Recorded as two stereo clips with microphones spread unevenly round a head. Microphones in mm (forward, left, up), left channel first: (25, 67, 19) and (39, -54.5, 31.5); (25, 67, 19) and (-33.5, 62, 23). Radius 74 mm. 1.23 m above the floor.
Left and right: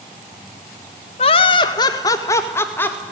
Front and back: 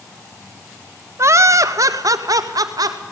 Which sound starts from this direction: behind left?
Laughter, at 1.2 s.